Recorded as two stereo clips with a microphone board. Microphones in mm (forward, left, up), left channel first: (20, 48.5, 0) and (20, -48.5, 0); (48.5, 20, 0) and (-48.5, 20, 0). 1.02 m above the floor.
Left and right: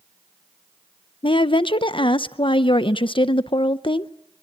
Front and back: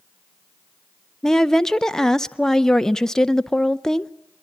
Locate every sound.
1.2 s a woman speaking: 85° left, 0.5 m